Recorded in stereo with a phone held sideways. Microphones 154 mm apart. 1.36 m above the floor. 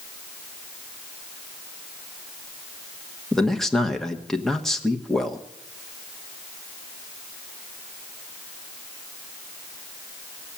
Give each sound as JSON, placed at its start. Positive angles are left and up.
{"t": 3.3, "sound": "a man speaking", "side_deg": 5, "distance_m": 1.1}